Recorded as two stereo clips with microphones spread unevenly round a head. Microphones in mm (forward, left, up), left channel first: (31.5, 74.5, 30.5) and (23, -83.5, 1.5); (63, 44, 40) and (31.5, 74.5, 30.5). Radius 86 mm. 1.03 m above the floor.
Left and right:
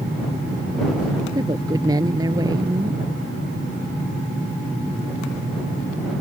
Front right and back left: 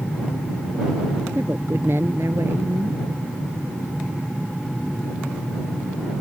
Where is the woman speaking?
165° right.